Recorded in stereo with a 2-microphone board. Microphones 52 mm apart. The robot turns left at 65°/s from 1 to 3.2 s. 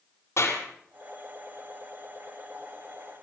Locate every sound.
0.4 s a clap: 60° left (ahead or behind), 5 m